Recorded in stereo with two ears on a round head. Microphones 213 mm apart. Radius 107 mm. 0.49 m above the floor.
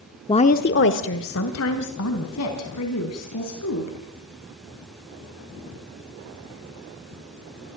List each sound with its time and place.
0.3 s a woman speaking: 20° left (ahead or behind), 0.7 m; by 4.0 s 70° left (ahead or behind), 5.5 m